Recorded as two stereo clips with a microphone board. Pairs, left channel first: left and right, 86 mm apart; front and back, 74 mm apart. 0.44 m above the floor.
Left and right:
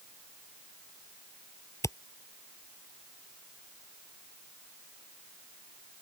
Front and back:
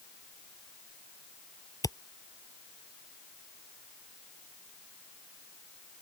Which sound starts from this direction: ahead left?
A camera shutter, at 1.8 s.